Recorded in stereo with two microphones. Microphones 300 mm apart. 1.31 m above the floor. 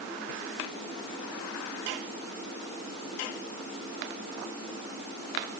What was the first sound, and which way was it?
Only background noise.